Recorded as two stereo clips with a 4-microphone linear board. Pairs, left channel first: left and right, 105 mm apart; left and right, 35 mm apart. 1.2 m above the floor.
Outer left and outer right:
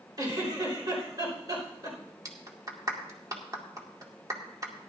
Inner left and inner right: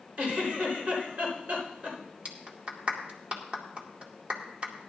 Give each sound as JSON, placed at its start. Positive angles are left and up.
{"t": 0.2, "sound": "a giggle", "side_deg": -40, "distance_m": 4.5}
{"t": 2.2, "sound": "a clap", "side_deg": -35, "distance_m": 2.0}